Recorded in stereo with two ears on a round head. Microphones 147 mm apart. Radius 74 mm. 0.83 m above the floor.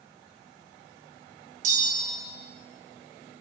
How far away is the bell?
About 0.8 m.